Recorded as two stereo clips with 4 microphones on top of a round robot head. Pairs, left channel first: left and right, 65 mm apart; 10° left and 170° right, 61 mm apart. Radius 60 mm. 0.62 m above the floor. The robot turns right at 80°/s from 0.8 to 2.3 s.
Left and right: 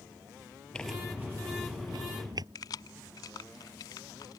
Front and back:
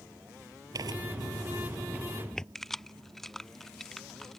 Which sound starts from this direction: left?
Keys jangling, at 2.5 s.